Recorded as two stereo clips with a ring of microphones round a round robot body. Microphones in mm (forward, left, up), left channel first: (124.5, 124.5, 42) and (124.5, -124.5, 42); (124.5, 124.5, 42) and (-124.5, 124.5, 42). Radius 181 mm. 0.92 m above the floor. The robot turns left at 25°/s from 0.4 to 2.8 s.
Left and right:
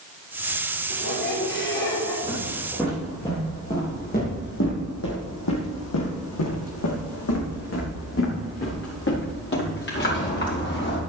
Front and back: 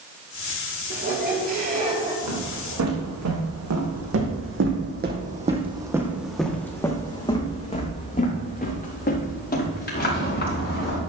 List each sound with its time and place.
0.9 s a squeak: 140° left, 4 m; by 2.1 s 110° left, 4 m
2.2 s footsteps: 165° right, 4 m; by 11.0 s 45° left, 6.5 m